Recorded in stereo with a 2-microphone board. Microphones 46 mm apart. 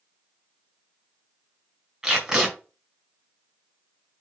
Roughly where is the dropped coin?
I don't hear a dropped coin.